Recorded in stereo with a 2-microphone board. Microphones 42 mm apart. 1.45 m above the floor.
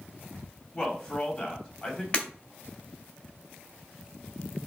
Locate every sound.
0.7 s a man speaking: 30° left (ahead or behind), 3.5 m
2.1 s breaking glass: 30° left (ahead or behind), 2.5 m